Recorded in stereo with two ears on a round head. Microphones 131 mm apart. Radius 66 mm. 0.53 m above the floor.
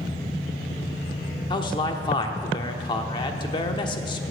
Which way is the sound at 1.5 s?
30° left (ahead or behind).